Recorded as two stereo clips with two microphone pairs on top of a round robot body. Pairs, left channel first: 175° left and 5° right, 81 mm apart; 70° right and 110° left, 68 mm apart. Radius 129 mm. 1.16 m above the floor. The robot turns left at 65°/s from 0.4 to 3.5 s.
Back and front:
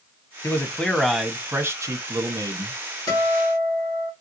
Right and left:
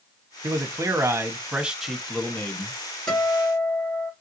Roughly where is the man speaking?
Behind left.